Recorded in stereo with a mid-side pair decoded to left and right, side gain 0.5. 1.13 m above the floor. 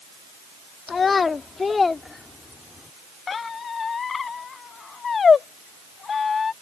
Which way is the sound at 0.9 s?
35° left.